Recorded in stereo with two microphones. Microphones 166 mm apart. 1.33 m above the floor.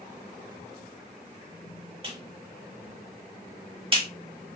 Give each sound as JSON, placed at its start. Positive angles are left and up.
{"t": 2.0, "sound": "a clap", "side_deg": -35, "distance_m": 1.3}